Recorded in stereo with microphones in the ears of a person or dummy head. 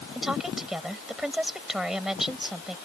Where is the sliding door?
No sliding door in this recording.